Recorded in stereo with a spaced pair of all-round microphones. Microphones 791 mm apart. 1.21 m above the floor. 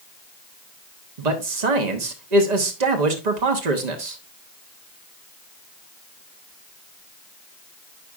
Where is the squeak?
I don't hear a squeak.